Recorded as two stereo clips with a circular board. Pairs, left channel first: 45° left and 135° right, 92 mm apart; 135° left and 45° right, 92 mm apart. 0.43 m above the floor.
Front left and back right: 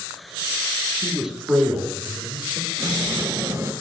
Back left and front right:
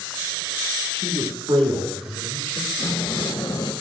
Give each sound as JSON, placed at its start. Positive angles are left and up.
{"t": 0.9, "sound": "a man speaking", "azimuth_deg": -45, "distance_m": 5.5}
{"t": 2.8, "sound": "a sliding door", "azimuth_deg": 170, "distance_m": 2.0}